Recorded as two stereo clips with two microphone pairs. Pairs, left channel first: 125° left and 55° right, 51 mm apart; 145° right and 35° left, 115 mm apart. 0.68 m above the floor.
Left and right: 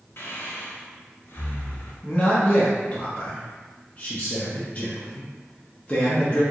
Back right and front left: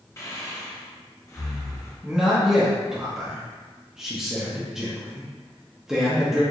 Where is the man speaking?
115° left, 0.8 m.